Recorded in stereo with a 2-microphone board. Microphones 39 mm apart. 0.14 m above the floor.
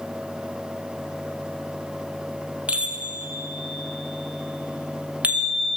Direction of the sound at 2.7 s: 35° right (ahead or behind).